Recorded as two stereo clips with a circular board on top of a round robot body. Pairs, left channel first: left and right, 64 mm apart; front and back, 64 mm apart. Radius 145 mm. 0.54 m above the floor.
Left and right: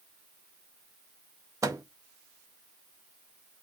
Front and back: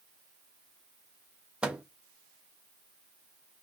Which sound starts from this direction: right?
A microwave, at 1.6 s.